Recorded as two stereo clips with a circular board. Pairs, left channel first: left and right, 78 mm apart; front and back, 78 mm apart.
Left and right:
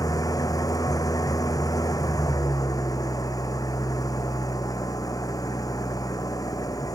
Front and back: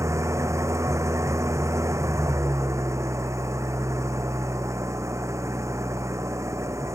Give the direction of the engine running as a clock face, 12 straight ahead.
8 o'clock.